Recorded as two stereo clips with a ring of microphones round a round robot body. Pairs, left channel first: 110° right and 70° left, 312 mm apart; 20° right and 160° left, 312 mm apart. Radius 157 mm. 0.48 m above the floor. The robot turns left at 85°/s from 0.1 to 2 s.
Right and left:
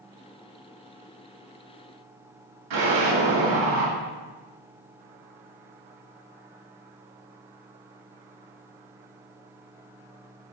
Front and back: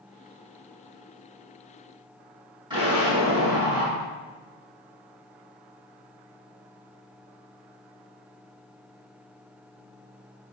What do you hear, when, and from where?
2.7 s an explosion: 80° left, 3 m